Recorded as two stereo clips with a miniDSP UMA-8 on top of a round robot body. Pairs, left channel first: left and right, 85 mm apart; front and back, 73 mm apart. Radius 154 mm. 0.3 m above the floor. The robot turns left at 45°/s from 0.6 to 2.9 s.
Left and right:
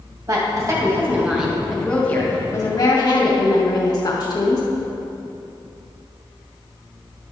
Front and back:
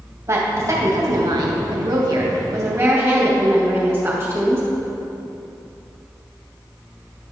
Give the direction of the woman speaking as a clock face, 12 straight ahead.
4 o'clock.